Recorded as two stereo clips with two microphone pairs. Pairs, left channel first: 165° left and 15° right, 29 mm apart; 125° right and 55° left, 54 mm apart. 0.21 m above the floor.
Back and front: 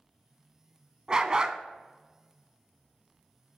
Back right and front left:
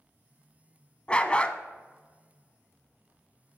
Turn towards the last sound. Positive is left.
turn(degrees=-65)